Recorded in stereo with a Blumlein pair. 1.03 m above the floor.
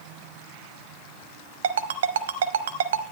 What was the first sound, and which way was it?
A ringtone, 60° right.